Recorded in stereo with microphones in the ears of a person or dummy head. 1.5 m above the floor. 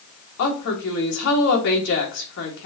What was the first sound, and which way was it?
A woman speaking, 70° left (ahead or behind).